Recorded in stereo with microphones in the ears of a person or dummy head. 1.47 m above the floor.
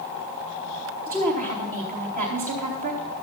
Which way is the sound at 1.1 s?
45° right (ahead or behind).